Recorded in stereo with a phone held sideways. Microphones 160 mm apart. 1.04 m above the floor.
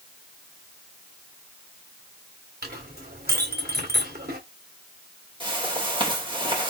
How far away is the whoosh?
About 3 m.